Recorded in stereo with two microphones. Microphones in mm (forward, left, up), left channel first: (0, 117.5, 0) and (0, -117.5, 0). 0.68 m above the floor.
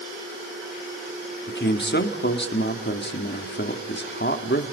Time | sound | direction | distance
1.5 | a man speaking | 55° left (ahead or behind) | 1.8 m